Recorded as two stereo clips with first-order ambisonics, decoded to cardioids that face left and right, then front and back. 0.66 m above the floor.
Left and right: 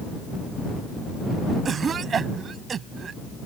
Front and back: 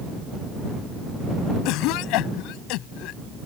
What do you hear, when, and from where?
1.6 s a cough: 25° right